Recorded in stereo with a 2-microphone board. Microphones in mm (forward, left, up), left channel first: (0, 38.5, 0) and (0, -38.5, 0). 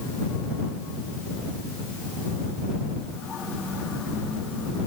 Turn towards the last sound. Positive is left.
No sound to turn to.